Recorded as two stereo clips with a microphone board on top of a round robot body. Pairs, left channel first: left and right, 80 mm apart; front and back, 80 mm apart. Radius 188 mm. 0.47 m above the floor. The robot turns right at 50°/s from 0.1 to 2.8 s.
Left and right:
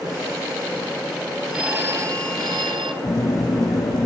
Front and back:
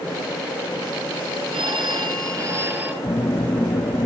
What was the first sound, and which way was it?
A phone ringing, 175° right.